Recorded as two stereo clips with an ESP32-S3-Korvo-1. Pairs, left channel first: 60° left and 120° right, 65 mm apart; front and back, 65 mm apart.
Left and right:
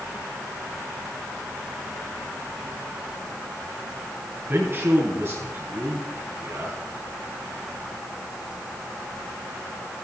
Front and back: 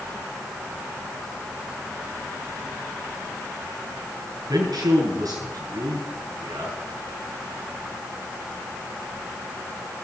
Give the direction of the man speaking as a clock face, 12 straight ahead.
6 o'clock.